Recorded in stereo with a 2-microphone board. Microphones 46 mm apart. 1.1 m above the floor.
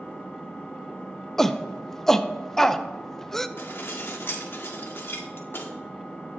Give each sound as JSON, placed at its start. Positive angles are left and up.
{"t": 0.0, "sound": "an engine running", "side_deg": 30, "distance_m": 4.0}
{"t": 1.4, "sound": "a shout", "side_deg": 10, "distance_m": 0.6}
{"t": 3.6, "sound": "dishes clattering", "side_deg": 60, "distance_m": 1.4}